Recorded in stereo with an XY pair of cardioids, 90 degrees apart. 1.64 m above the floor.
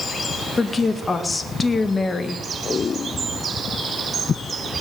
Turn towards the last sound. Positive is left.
turn(degrees=35)